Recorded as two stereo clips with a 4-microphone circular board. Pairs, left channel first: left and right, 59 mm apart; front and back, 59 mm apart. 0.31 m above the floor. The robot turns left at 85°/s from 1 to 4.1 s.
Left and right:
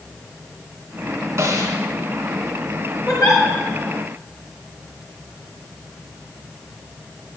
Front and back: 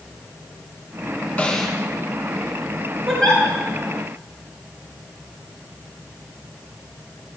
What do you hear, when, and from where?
1.4 s a snare drum: 70° right, 2.5 m; by 1.8 s 100° right, 2.5 m
3.1 s a giggle: 95° left, 5 m; by 3.4 s 65° left, 5 m